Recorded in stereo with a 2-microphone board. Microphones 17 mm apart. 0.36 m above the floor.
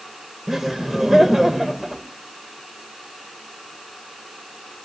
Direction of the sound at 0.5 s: 25° right (ahead or behind).